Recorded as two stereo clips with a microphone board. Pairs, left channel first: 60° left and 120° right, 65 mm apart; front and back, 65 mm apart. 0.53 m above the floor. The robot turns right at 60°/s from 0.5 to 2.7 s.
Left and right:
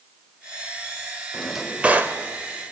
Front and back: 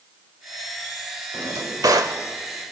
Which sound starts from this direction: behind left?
A drawer, at 1.3 s.